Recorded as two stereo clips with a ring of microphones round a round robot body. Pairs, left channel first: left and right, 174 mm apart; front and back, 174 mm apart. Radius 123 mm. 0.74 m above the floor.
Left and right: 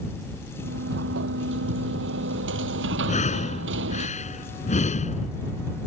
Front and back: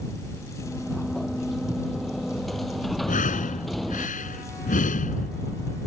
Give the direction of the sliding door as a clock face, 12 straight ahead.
3 o'clock.